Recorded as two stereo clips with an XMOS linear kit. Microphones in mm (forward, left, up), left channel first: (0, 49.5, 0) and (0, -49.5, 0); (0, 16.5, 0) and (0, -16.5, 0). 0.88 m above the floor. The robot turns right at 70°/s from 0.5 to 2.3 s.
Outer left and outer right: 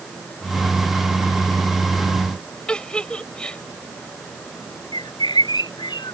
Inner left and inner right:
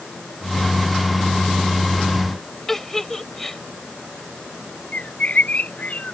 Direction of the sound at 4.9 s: 50° left (ahead or behind).